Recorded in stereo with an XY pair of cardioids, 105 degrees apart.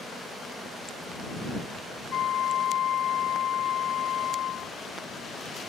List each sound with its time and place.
2.1 s a flute: 65° left